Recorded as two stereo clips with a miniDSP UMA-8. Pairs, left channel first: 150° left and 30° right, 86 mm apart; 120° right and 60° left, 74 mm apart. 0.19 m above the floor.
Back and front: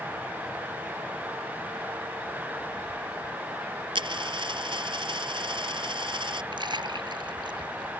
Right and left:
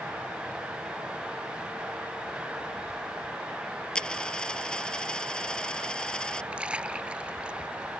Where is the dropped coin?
40° right.